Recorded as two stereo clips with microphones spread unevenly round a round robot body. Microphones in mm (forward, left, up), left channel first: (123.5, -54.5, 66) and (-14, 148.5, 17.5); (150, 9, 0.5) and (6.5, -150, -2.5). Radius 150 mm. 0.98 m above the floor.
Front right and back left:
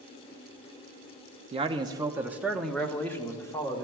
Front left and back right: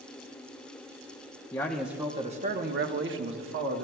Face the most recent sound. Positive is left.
turn(degrees=-140)